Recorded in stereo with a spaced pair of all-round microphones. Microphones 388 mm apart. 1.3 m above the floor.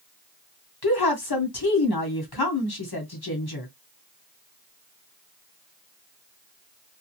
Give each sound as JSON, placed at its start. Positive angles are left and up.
{"t": 0.8, "sound": "a woman speaking", "side_deg": 70, "distance_m": 1.2}